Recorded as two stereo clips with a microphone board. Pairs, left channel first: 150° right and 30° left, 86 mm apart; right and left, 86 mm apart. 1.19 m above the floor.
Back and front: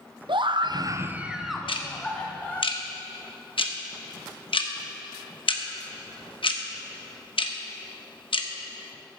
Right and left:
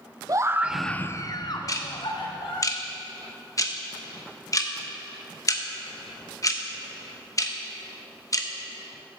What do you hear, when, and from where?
0.3 s a scream: 45° left, 0.7 m; by 2.7 s 75° right, 1.9 m
1.7 s ticking: 140° right, 0.9 m